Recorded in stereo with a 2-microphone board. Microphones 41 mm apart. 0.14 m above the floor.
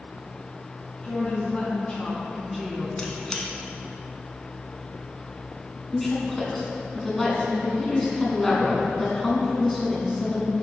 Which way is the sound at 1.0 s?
30° left (ahead or behind).